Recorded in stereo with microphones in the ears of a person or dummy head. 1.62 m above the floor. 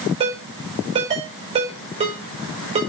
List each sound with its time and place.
0.2 s a ringtone: 30° right (ahead or behind), 5 m